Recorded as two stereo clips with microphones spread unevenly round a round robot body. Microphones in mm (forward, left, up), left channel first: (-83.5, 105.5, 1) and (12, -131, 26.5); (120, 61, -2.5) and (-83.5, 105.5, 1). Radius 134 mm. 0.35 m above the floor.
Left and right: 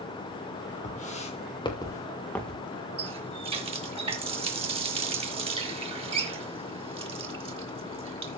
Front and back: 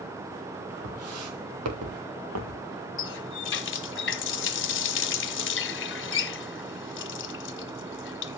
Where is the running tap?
5° left, 1.5 m.